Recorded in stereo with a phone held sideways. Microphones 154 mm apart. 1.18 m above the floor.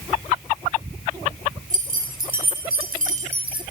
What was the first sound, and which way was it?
Keys jangling, 60° right (ahead or behind).